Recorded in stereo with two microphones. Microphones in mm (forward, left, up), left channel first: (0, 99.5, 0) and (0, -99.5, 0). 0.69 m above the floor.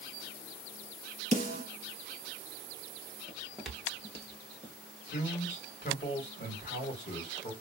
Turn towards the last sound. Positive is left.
turn(degrees=55)  # may be behind; listen again after turning